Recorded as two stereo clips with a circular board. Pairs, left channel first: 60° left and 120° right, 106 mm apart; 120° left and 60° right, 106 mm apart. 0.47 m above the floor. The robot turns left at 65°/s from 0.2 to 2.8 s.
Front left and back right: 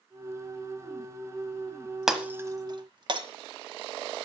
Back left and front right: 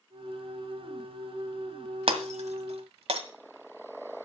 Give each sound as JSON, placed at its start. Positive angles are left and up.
{"t": 2.1, "sound": "breaking glass", "azimuth_deg": -35, "distance_m": 1.2}